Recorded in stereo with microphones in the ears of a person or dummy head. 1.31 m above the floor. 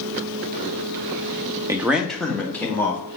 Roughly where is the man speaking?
Centre.